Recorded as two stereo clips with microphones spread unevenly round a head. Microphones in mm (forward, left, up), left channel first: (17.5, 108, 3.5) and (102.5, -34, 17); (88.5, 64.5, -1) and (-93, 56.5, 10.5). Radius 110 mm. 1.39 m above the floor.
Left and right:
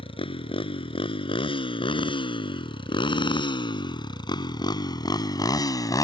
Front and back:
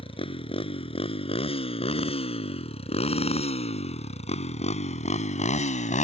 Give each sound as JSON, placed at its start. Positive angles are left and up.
{"t": 0.0, "sound": "a motorcycle", "azimuth_deg": 65}